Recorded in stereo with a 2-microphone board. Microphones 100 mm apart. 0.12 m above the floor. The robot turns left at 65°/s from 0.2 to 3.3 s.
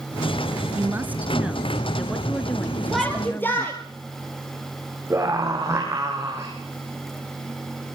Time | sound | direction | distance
0.7 | a woman speaking | 20° right (ahead or behind) | 1.1 m
2.9 | a shout | 5° right (ahead or behind) | 2.5 m
5.1 | a scream | 25° right (ahead or behind) | 5.5 m